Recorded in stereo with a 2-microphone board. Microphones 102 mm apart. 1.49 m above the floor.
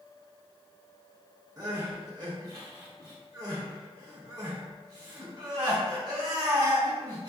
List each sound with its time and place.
1.6 s crying: 35° right (ahead or behind), 1.0 m